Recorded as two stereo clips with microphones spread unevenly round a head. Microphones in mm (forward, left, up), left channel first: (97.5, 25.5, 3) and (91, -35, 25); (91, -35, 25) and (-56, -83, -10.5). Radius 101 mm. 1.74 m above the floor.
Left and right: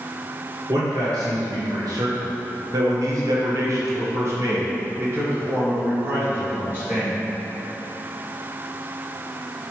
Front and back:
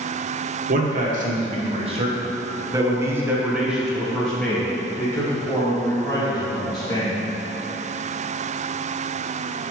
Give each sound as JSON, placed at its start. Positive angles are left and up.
{"t": 0.7, "sound": "a man speaking", "azimuth_deg": -135, "distance_m": 1.7}